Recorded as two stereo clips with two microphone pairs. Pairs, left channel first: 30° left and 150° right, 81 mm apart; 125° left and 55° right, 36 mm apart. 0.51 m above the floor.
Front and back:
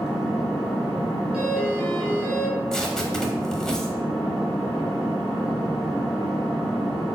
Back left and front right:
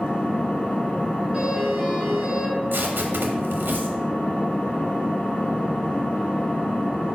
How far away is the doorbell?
About 1.3 m.